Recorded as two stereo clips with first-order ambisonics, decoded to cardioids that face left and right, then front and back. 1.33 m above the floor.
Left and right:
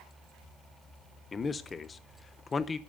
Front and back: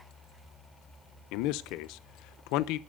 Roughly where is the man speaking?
Ahead.